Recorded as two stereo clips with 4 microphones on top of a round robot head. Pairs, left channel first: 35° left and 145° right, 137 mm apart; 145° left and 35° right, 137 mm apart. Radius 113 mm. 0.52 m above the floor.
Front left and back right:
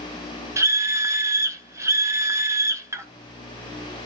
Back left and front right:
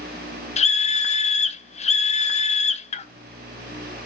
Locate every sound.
0.6 s a scream: 150° left, 1.0 m